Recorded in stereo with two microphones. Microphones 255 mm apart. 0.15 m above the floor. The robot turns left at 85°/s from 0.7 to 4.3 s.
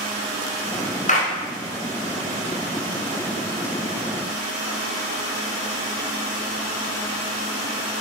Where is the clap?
30° left (ahead or behind), 1.2 m.